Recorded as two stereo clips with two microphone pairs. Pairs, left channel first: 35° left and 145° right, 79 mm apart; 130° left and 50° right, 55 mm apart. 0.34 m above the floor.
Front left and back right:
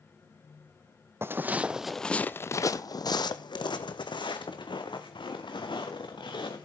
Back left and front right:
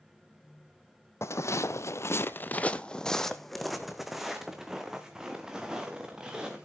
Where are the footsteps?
155° left, 0.7 m; by 6.7 s 30° left, 2.5 m.